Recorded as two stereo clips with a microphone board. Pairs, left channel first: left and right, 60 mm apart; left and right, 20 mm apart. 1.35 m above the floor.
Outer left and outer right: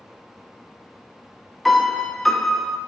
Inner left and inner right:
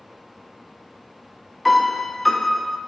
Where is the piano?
Centre (ahead or behind), 0.5 m.